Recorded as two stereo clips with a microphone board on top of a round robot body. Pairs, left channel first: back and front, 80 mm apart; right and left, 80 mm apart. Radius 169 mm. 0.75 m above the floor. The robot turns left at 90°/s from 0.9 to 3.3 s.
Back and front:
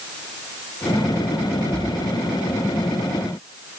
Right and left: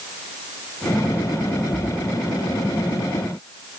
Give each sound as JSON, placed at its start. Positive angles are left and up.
{"t": 1.7, "sound": "a splash", "azimuth_deg": -50, "distance_m": 1.5}